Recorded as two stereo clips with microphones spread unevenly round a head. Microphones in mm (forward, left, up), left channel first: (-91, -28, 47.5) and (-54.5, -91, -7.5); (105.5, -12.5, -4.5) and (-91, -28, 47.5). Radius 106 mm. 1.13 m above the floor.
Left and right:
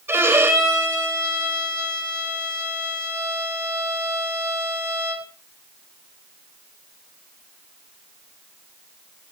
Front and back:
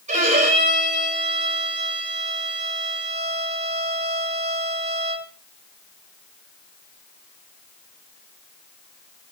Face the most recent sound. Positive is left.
turn(degrees=-120)